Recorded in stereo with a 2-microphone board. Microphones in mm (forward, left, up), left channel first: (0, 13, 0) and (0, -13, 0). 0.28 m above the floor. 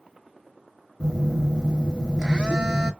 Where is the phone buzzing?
35° right (ahead or behind), 0.9 m.